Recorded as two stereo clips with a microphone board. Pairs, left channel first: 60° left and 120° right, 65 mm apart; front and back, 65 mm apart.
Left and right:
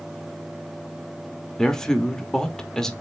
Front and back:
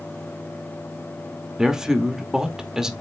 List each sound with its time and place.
1.6 s a man speaking: 120° left, 1.2 m